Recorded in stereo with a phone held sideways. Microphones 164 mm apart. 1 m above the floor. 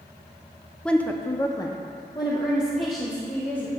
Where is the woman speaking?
5° left (ahead or behind), 0.5 m; by 3.7 s 20° left (ahead or behind), 1.7 m.